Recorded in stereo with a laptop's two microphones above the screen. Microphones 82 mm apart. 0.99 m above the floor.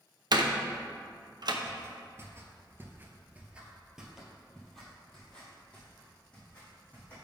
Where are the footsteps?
35° right (ahead or behind), 1.5 m; by 7.2 s 15° left (ahead or behind), 3 m.